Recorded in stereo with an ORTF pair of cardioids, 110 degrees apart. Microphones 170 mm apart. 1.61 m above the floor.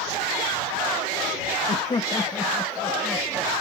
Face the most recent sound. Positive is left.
turn(degrees=-10)